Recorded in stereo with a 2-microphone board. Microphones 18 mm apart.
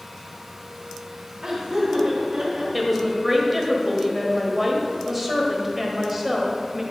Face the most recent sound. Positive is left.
turn(degrees=-5)  # may be behind; listen again after turning